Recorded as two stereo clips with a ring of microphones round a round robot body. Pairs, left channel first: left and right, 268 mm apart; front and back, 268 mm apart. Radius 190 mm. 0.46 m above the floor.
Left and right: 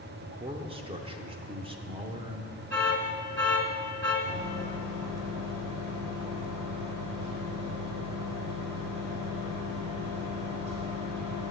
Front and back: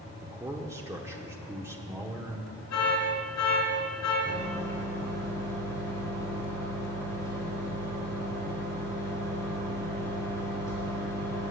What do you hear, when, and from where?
0.2 s a man speaking: 115° right, 0.8 m
2.7 s an alarm: 5° left, 4 m
4.2 s a microwave: 100° right, 4.5 m